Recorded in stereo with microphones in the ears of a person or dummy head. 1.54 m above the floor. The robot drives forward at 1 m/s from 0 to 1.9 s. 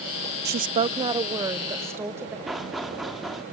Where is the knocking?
Centre (ahead or behind), 2.5 m.